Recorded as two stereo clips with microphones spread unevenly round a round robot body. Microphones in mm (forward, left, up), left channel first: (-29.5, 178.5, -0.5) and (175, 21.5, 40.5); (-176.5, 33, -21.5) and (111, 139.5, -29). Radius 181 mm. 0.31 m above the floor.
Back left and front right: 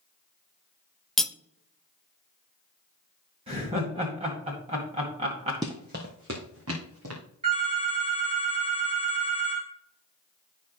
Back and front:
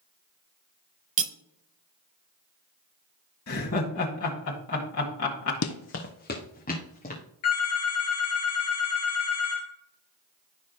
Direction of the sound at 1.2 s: 65° left.